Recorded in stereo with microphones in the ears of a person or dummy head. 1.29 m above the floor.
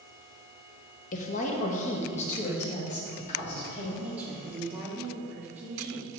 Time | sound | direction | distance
1.1 | a woman speaking | 45° left (ahead or behind) | 1.2 m
4.0 | a woman speaking | 10° right (ahead or behind) | 2.5 m